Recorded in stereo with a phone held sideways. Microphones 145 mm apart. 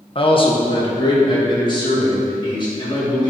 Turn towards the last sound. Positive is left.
turn(degrees=30)  # may be behind; listen again after turning